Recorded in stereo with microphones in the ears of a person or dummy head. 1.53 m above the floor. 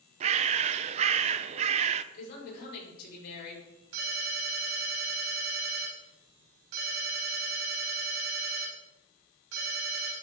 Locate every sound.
0.2 s a bird: 40° right (ahead or behind), 0.5 m
2.1 s a woman speaking: 50° left (ahead or behind), 5.5 m
3.9 s a ringtone: 80° right, 4.5 m